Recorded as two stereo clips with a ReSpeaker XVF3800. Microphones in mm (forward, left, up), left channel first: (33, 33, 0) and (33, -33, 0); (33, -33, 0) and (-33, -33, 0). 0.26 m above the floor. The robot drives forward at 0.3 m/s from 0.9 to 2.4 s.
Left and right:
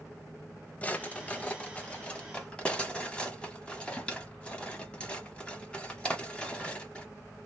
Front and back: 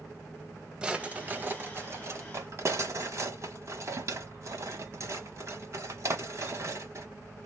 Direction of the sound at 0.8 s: 130° left.